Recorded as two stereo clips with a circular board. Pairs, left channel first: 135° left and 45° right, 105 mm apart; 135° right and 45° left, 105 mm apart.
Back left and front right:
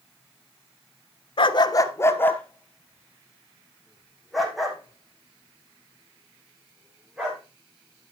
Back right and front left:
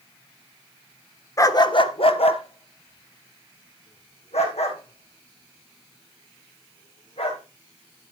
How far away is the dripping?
I don't hear dripping.